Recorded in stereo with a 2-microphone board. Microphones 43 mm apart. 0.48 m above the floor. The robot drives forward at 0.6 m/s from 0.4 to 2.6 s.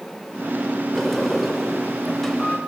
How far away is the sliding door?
About 2 m.